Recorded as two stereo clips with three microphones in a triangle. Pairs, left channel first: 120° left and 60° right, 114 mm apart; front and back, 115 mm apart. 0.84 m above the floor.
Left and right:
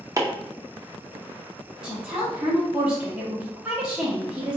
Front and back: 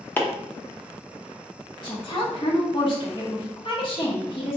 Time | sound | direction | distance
0.2 | chopping | 55° right | 0.6 m
1.8 | a woman speaking | 20° left | 1.2 m